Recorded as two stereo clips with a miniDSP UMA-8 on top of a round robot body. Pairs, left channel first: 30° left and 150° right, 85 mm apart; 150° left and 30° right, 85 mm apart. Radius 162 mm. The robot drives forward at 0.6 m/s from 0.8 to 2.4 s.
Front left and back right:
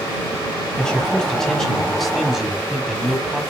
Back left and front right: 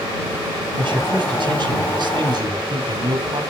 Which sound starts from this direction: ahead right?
A man speaking, at 0.8 s.